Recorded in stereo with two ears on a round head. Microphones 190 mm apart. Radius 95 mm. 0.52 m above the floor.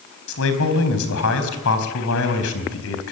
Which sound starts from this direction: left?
A man speaking, at 0.3 s.